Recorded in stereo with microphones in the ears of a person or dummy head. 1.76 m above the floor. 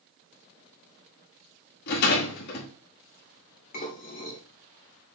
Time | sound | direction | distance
1.9 | a rattle | 50° left (ahead or behind) | 2 m
3.7 | dishes clattering | 40° left (ahead or behind) | 3 m